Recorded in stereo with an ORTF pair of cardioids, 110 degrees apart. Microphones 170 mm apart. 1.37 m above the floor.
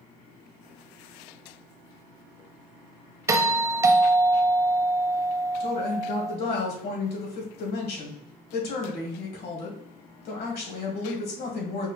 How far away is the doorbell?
About 0.7 m.